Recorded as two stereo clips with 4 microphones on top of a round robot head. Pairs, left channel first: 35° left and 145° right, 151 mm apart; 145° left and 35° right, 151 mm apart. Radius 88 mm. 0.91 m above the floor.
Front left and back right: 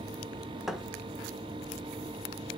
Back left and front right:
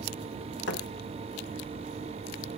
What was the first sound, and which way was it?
A thud, 130° left.